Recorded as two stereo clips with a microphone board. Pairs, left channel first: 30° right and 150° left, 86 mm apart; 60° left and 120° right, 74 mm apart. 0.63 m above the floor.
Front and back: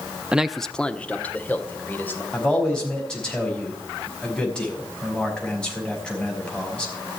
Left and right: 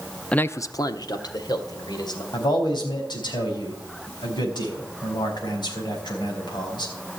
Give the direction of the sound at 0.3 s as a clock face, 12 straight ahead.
8 o'clock.